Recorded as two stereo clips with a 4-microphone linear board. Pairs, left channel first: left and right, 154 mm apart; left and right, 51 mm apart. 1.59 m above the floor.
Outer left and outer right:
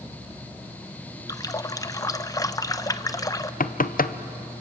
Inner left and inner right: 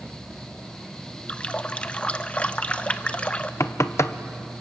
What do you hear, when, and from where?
1.3 s a running tap: 25° left (ahead or behind), 0.7 m
3.6 s knocking: 65° left (ahead or behind), 0.7 m